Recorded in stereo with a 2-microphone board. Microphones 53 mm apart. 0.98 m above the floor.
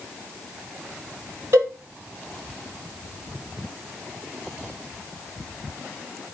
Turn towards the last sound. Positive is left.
turn(degrees=-60)  # may be behind; listen again after turning